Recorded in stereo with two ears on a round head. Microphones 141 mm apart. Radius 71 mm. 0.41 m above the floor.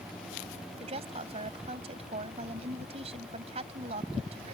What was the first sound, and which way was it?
A woman speaking, 40° right (ahead or behind).